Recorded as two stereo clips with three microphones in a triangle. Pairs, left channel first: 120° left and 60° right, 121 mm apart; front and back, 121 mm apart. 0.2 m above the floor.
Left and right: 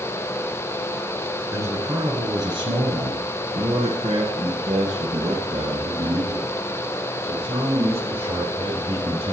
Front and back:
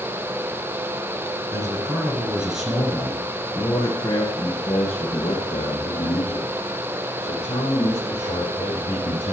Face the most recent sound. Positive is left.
turn(degrees=-20)